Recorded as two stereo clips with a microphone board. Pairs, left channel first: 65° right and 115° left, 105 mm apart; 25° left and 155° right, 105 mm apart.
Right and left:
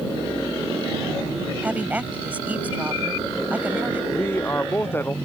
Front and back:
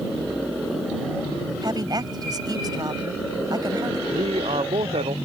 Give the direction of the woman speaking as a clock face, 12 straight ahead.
6 o'clock.